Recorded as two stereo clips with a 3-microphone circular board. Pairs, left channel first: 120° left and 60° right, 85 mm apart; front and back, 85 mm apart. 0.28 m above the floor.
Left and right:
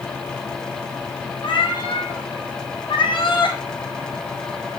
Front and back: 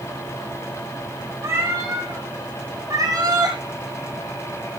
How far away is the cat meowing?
About 3 m.